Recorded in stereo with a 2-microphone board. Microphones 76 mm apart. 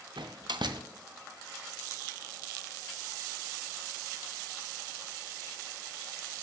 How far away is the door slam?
About 0.5 m.